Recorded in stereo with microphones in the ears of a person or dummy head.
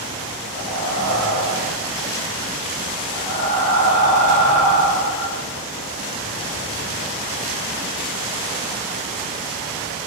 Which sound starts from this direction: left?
Breathing, at 0.6 s.